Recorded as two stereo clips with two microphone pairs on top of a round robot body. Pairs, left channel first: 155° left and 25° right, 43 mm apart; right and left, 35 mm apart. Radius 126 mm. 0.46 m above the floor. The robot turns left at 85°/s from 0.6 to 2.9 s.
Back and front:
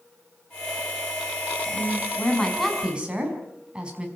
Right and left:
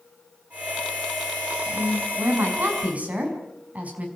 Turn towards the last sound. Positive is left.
turn(degrees=45)